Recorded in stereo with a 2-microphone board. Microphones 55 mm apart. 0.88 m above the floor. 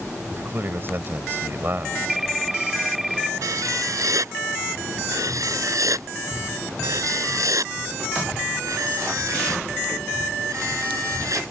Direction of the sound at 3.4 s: 80° right.